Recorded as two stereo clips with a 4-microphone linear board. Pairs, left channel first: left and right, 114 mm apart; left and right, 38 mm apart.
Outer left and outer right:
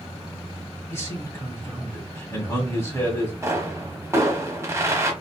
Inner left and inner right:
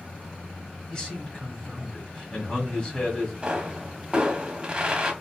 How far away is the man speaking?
About 1.6 m.